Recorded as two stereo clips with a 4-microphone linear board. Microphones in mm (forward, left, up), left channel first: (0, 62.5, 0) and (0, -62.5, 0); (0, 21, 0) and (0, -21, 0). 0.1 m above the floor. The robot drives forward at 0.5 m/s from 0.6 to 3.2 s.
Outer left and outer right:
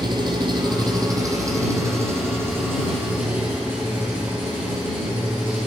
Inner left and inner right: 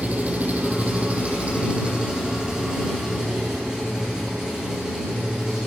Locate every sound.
0.0 s an engine running: 35° right (ahead or behind), 1.0 m; by 5.7 s 15° right (ahead or behind), 2 m